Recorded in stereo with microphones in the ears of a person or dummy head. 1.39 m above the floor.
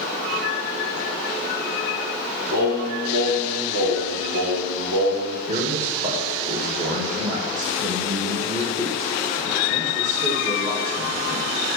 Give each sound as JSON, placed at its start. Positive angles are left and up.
{"t": 2.5, "sound": "singing", "side_deg": -70, "distance_m": 2.0}
{"t": 5.5, "sound": "a man speaking", "side_deg": -40, "distance_m": 1.7}